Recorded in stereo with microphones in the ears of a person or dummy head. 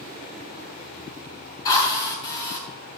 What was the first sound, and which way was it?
A drill, 20° left (ahead or behind).